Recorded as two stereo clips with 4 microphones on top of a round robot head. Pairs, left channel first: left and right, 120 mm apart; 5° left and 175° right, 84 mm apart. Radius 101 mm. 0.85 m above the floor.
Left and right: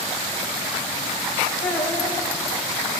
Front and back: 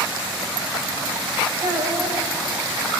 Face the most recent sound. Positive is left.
turn(degrees=145)